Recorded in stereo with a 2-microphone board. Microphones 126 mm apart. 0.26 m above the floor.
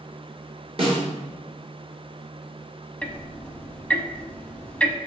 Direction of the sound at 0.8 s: 50° right (ahead or behind).